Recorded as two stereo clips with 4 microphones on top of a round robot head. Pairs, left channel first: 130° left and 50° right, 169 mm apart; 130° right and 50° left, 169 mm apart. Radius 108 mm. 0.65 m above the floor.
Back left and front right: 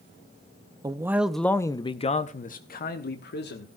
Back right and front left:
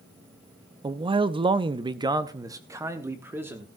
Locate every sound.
0.8 s a man speaking: 5° left, 0.7 m; by 3.7 s 125° left, 1.4 m